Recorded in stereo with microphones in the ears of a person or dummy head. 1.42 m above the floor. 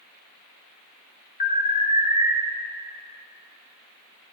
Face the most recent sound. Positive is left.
turn(degrees=45)  # may be behind; listen again after turning